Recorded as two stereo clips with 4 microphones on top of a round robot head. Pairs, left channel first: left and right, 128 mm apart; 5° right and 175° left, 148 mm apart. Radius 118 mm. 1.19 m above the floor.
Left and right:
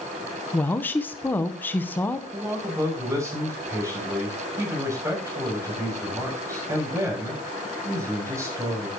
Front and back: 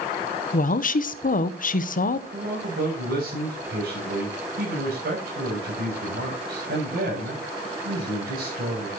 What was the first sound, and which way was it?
A woman speaking, 15° left.